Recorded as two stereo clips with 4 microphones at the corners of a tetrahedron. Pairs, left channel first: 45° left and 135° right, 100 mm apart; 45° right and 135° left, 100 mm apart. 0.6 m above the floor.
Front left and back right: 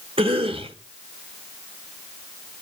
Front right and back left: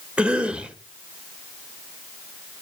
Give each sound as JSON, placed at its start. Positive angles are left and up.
{"t": 0.2, "sound": "a cough", "azimuth_deg": -145, "distance_m": 2.0}